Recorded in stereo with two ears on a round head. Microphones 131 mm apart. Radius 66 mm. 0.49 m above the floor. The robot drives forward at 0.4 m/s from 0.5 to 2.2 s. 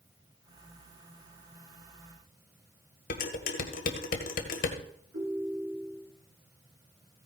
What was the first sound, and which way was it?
Dishes clattering, 65° left (ahead or behind).